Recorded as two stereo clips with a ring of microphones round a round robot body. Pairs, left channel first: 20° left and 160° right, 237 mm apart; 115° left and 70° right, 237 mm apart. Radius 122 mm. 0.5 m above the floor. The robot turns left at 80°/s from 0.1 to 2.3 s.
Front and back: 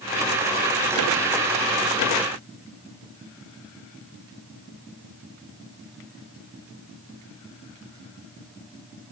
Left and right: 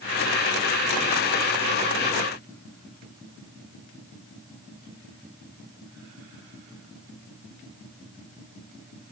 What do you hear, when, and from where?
Only background noise.